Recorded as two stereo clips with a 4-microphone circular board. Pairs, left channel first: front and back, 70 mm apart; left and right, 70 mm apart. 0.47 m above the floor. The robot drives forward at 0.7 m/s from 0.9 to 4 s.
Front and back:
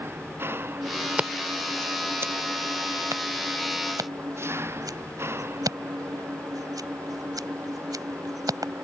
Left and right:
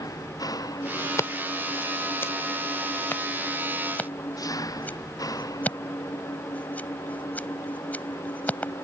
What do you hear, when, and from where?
0.0 s an engine running: 125° left
1.2 s scissors: 115° left; by 8.8 s 155° left